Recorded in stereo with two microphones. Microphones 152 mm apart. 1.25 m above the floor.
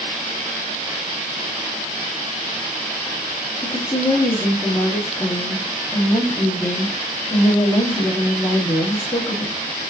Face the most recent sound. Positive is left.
turn(degrees=25)  # may be behind; listen again after turning